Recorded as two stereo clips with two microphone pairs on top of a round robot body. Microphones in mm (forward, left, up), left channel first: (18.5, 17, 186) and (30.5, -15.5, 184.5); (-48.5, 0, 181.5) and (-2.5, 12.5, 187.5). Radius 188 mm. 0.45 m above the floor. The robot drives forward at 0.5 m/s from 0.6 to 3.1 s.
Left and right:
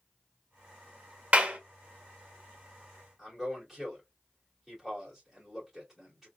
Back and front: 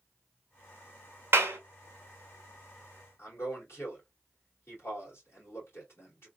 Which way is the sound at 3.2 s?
150° right.